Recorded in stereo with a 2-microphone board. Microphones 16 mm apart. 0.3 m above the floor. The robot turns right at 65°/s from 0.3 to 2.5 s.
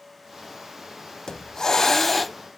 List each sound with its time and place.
1.3 s a hiss: 115° left, 0.5 m; by 2.4 s 175° right, 0.5 m